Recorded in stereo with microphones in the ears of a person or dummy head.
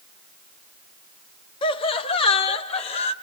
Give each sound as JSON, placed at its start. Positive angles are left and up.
{"t": 1.6, "sound": "laughter", "side_deg": 30, "distance_m": 1.3}